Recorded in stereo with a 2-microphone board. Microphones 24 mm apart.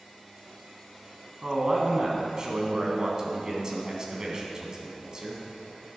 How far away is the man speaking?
About 2.5 m.